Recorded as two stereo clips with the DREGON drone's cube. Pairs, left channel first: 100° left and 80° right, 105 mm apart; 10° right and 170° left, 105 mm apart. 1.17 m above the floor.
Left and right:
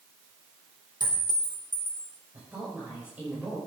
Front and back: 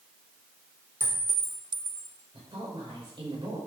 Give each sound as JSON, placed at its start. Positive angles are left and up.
{"t": 1.0, "sound": "a clink", "azimuth_deg": -120, "distance_m": 3.0}
{"t": 2.3, "sound": "a woman speaking", "azimuth_deg": -155, "distance_m": 5.5}